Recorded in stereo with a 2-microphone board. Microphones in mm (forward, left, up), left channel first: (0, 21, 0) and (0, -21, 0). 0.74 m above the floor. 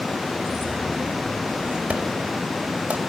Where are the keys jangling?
30° right (ahead or behind), 5.5 m; by 1.8 s 25° right (ahead or behind), 4.5 m.